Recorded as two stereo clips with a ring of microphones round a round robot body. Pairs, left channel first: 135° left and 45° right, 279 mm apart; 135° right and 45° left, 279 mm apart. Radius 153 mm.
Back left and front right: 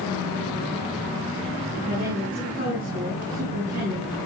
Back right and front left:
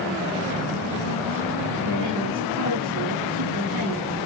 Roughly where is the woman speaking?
Ahead.